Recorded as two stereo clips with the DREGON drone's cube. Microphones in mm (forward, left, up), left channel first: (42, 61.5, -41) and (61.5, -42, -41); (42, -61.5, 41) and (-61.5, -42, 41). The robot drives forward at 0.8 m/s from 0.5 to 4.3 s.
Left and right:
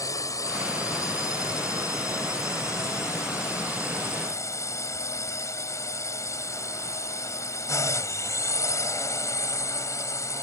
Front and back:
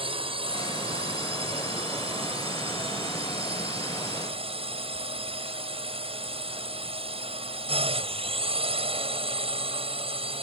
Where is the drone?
155° left; by 10.4 s 160° left.